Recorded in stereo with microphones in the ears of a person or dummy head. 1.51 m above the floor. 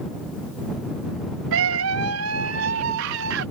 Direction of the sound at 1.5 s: 75° right (ahead or behind).